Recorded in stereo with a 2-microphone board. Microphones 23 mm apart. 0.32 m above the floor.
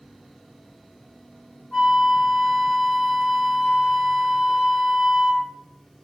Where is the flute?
25° left (ahead or behind), 1.4 m.